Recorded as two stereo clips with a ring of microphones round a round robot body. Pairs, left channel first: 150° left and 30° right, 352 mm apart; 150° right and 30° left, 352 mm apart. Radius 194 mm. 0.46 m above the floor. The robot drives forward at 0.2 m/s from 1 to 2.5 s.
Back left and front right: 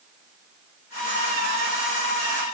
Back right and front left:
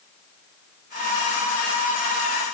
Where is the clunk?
I don't hear a clunk.